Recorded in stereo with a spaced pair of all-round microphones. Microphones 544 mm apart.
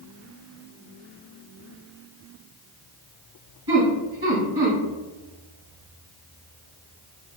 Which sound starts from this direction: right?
Laughter, at 3.7 s.